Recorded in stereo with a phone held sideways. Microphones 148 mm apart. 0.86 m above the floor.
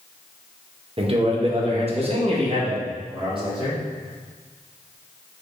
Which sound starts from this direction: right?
A man speaking, at 1.0 s.